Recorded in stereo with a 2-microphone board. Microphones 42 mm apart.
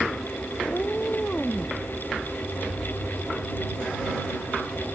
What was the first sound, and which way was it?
A cat meowing, 35° left (ahead or behind).